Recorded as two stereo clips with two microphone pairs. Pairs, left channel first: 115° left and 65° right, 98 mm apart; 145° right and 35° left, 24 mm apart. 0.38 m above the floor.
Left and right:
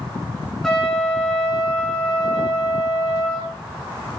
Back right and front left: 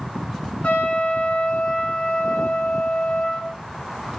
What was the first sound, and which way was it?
A trumpet, 160° right.